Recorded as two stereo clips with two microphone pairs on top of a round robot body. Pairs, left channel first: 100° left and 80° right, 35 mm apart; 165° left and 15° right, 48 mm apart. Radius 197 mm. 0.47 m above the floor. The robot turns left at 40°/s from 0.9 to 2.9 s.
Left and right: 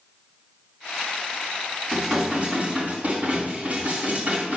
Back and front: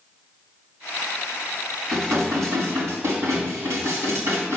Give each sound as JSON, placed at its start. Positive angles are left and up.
{"t": 1.9, "sound": "dishes clattering", "azimuth_deg": 5, "distance_m": 3.5}